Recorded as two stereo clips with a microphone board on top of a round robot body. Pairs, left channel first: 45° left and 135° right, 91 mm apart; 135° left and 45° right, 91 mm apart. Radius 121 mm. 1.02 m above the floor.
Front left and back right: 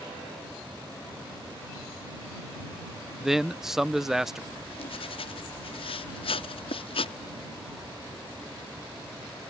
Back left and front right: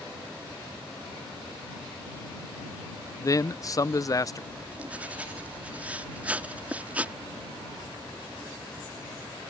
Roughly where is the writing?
Ahead left.